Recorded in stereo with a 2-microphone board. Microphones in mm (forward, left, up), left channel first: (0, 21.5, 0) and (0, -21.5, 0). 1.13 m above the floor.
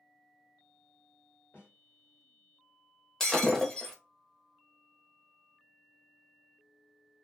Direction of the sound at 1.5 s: 60° left (ahead or behind).